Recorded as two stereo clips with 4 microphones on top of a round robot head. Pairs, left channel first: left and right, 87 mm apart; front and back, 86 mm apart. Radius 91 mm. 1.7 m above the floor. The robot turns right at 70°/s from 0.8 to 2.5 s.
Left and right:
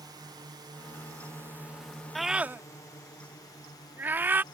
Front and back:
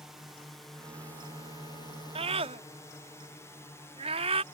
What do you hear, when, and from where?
0.0 s a drone: 95° right; by 4.5 s 60° left
2.1 s a scream: 175° left; by 4.4 s 160° right